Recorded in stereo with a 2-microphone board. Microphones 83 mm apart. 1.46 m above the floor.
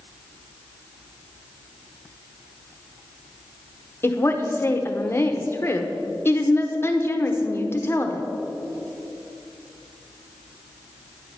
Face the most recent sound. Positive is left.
turn(degrees=30)  # may be behind; listen again after turning